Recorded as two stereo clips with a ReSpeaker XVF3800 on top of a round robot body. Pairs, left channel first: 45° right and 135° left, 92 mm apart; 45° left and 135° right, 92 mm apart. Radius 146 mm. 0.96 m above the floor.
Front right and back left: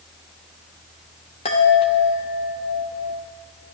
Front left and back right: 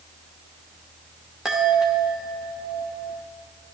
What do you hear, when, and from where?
1.4 s a chime: 50° right, 0.7 m